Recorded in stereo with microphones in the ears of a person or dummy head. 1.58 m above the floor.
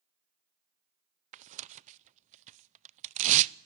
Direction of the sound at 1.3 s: 40° right (ahead or behind).